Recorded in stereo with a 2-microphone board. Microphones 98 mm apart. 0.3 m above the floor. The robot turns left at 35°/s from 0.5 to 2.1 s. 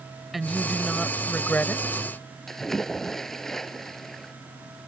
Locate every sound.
0.3 s a woman speaking: 175° right; by 2.0 s 130° left
2.5 s a splash: 5° left (ahead or behind)